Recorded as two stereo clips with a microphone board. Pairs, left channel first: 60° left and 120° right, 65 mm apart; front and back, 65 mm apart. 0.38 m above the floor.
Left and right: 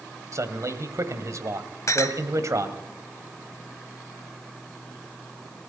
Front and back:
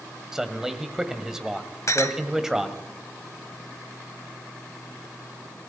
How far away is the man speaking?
About 1.8 m.